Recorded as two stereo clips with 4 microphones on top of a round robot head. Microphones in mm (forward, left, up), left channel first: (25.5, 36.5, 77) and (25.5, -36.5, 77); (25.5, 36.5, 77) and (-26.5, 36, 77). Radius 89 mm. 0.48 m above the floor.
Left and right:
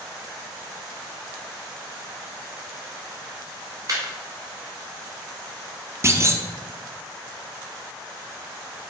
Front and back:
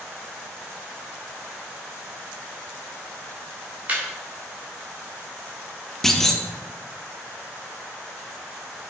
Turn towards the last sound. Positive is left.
turn(degrees=-80)